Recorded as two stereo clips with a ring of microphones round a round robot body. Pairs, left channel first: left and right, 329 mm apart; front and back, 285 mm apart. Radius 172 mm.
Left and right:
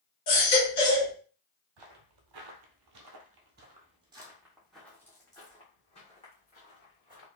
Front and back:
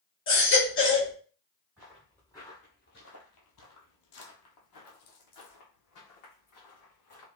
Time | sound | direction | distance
0.3 | a baby crying | 50° left | 2.5 m
1.8 | footsteps | 95° right | 1.2 m